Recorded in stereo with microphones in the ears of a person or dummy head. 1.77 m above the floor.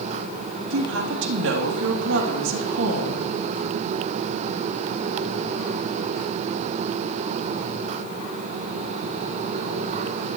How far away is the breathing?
I don't hear breathing.